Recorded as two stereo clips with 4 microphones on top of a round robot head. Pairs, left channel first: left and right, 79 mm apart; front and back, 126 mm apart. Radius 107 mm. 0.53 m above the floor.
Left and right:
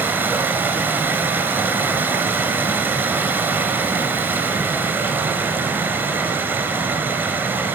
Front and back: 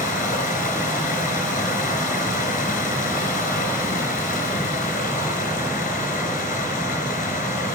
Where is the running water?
25° right, 4.5 m.